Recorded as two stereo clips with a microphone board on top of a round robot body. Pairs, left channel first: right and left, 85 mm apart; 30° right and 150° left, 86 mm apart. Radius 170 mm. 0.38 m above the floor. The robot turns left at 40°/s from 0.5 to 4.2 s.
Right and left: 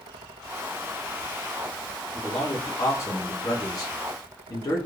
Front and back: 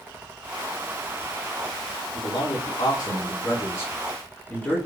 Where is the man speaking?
10° right, 1.9 m; by 4.8 s 95° right, 1.9 m.